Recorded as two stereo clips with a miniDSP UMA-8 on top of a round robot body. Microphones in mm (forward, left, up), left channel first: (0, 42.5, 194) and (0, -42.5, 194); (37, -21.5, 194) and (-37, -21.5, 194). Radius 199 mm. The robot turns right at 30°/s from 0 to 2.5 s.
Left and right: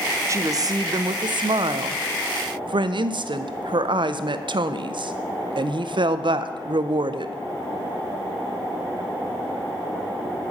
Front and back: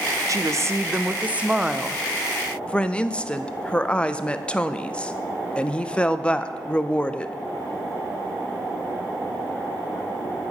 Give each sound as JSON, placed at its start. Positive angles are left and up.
{"t": 0.3, "sound": "a woman speaking", "azimuth_deg": -140, "distance_m": 0.6}